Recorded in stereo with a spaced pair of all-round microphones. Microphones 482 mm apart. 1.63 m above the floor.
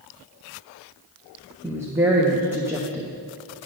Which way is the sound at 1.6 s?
5° right (ahead or behind).